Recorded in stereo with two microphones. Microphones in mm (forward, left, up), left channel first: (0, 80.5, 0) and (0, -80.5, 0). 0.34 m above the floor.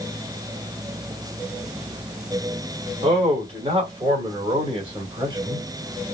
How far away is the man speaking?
About 2.0 m.